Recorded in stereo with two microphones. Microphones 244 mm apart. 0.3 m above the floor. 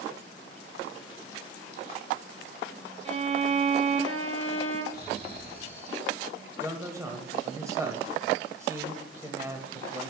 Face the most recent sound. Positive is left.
turn(degrees=-10)  # may be behind; listen again after turning